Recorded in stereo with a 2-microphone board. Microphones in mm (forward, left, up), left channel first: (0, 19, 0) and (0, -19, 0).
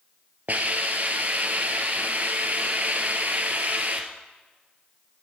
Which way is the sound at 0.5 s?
45° right (ahead or behind).